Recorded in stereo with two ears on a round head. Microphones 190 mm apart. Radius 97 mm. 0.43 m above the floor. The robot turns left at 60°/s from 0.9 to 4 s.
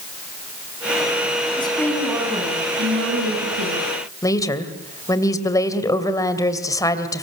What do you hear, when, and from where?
1.6 s a woman speaking: 25° left, 4.5 m; by 3.9 s 120° right, 4.5 m
4.2 s a woman speaking: 15° left (ahead or behind), 2.5 m